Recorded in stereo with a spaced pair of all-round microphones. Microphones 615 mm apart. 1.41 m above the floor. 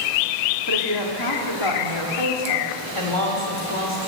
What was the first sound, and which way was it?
A woman speaking, 35° left (ahead or behind).